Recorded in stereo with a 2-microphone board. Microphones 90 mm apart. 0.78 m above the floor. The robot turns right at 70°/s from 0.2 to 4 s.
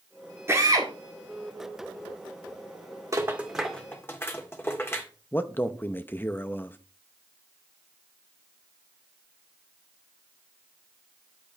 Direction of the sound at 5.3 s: 20° left (ahead or behind).